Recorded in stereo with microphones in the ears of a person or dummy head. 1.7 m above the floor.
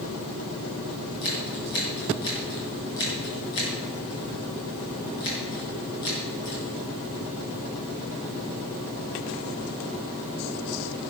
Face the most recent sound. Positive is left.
turn(degrees=80)